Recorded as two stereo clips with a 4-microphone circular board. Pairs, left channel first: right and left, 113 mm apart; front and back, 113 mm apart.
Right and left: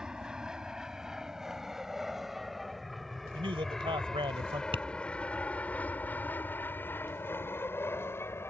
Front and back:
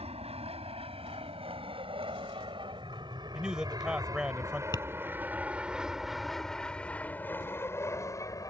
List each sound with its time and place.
0.0 s an aircraft: 175° left; by 8.5 s 35° right
3.3 s a man speaking: 100° left
4.7 s tapping: 55° left